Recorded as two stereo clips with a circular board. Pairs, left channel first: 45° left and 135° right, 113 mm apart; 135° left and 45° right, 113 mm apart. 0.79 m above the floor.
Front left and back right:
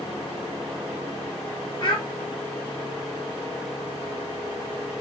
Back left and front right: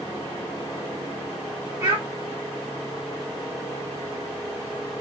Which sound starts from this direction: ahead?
A child speaking, at 1.8 s.